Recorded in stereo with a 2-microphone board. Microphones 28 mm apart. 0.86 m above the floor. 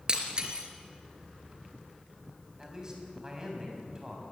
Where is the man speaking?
25° right (ahead or behind), 6 m.